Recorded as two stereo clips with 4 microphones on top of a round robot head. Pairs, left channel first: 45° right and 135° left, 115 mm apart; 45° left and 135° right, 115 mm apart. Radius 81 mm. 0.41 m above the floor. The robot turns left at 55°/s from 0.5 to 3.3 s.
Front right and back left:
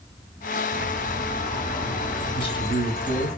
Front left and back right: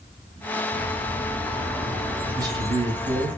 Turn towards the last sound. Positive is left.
turn(degrees=-125)